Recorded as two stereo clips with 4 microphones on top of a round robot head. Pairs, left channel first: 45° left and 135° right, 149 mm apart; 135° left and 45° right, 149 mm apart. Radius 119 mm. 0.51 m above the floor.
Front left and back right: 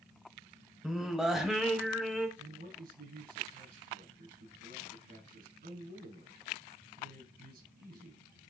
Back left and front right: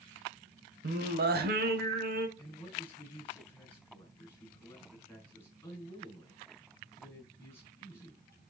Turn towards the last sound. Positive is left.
turn(degrees=-150)